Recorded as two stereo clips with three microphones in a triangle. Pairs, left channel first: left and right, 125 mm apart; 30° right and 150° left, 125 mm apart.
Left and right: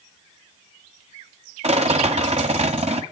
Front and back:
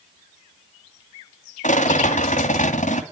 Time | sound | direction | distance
1.6 | a rattle | 55° right | 2 m